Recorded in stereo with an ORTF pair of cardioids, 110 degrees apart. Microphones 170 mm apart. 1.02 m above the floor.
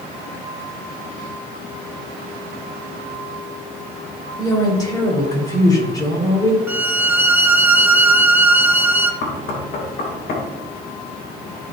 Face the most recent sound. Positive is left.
turn(degrees=65)